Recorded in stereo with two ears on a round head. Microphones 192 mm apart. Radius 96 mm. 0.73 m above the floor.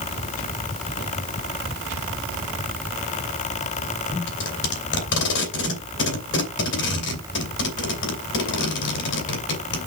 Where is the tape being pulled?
60° left (ahead or behind), 3 m.